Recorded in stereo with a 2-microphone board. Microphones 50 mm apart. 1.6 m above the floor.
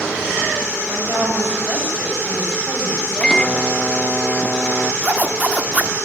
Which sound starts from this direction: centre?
A microwave, at 3.2 s.